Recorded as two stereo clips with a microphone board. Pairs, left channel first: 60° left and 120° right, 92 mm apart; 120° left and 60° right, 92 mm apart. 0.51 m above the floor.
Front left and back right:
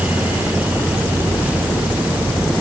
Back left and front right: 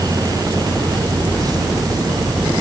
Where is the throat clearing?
I don't hear throat clearing.